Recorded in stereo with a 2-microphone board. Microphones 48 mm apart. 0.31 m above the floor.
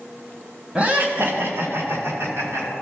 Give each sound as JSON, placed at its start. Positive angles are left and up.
{"t": 0.8, "sound": "laughter", "side_deg": -25, "distance_m": 1.9}